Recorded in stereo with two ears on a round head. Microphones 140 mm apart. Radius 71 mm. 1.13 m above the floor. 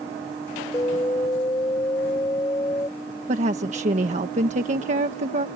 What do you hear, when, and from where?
0.7 s an alarm: 20° left (ahead or behind)
3.3 s a woman speaking: 45° right (ahead or behind)